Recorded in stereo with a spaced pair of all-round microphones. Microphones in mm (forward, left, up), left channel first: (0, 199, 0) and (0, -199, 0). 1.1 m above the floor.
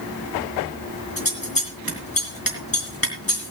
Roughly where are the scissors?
Left.